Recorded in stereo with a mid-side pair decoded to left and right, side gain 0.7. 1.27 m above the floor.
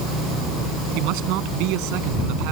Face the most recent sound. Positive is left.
turn(degrees=-65)